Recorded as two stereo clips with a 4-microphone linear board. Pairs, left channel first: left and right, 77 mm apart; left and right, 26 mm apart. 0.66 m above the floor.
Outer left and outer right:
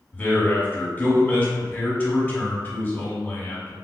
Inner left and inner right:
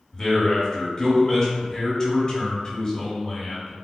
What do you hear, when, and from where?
0.1 s a man speaking: 25° left (ahead or behind), 1.0 m